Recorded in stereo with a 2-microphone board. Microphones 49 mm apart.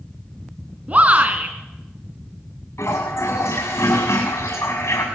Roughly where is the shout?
Right.